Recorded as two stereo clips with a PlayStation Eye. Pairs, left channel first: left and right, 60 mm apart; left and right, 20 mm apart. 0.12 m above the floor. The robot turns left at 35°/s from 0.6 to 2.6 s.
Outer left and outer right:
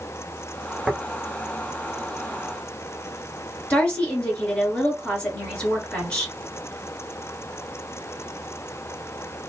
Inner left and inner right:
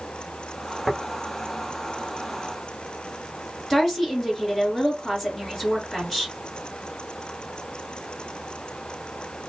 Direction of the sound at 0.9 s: 10° right (ahead or behind).